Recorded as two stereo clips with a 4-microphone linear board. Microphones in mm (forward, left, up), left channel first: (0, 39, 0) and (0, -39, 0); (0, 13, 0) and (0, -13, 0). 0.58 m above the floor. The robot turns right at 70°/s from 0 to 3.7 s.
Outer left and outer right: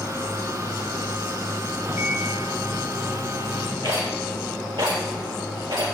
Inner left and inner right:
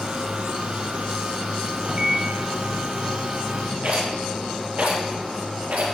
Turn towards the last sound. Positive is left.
turn(degrees=-85)